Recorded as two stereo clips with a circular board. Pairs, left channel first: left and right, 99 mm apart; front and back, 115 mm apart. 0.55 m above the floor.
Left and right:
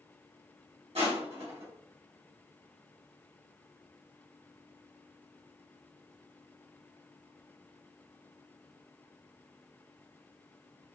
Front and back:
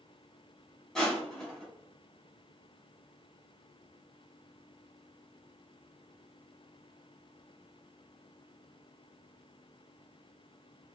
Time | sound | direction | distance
0.9 | crushing | 85° right | 2 m